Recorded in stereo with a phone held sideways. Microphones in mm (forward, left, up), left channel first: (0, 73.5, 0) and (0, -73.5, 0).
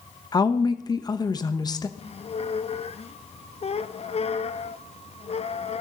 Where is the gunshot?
I don't hear a gunshot.